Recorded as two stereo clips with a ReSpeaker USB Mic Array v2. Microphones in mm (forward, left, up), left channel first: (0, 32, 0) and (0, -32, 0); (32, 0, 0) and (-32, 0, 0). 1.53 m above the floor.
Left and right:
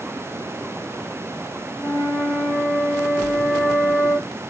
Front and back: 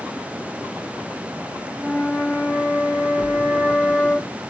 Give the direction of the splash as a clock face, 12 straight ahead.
3 o'clock.